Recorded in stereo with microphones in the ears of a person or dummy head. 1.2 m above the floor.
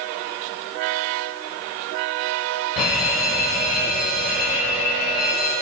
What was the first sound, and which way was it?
An alarm, 5° right (ahead or behind).